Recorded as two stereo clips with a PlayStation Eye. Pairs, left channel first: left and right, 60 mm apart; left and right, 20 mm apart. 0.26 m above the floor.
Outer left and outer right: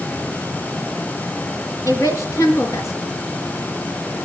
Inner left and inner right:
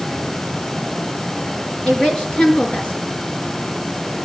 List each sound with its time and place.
1.9 s a woman speaking: 65° left (ahead or behind), 4.5 m